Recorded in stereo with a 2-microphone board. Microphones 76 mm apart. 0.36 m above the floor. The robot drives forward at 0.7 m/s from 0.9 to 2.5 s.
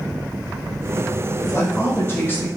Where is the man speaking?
35° left (ahead or behind), 1.0 m; by 2.5 s 25° left (ahead or behind), 1.3 m.